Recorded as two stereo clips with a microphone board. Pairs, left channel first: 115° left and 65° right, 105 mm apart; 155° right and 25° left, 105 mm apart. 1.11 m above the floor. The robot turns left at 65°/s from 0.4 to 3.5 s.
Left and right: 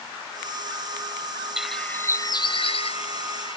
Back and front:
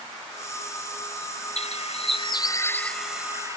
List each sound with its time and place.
1.6 s a bird: 150° right; by 3.6 s 85° left